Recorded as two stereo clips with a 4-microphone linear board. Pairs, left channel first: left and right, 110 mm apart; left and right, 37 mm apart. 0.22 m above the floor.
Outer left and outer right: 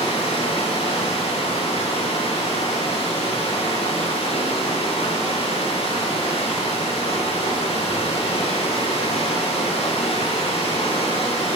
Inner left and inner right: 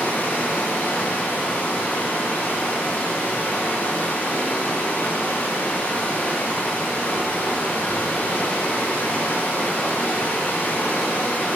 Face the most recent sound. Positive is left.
turn(degrees=60)  # may be behind; listen again after turning